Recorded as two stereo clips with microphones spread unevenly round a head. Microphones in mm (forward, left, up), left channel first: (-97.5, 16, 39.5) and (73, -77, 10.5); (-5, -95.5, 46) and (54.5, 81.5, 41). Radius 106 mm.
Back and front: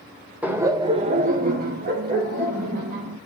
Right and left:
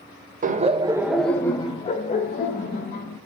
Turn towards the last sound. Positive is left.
turn(degrees=-70)